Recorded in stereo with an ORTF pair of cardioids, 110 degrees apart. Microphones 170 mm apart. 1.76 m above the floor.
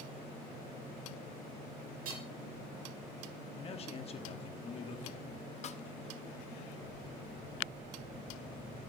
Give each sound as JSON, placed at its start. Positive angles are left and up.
{"t": 2.0, "sound": "hammering", "azimuth_deg": -55, "distance_m": 5.0}
{"t": 3.6, "sound": "a man speaking", "azimuth_deg": 35, "distance_m": 1.3}
{"t": 5.6, "sound": "a snare drum", "azimuth_deg": 40, "distance_m": 0.7}